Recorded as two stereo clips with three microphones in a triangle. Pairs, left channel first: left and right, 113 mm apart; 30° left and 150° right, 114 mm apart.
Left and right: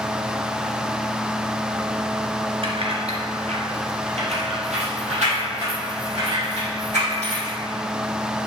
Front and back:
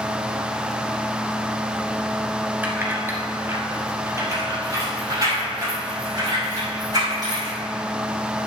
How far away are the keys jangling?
About 2 m.